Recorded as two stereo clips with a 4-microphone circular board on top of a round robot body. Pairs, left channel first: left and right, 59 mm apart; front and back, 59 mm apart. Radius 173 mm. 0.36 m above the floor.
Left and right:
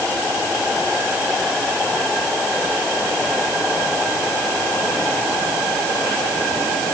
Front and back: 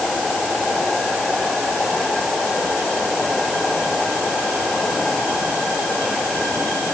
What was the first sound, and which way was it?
Only background noise.